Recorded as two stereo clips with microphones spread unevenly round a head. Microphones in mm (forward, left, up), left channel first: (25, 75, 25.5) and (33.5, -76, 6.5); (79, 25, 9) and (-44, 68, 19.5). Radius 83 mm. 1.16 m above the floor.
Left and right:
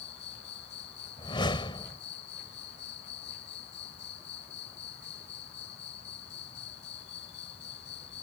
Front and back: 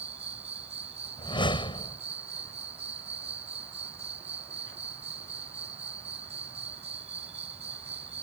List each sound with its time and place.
0.0 s an insect: 120° left
1.2 s a whoosh: 35° left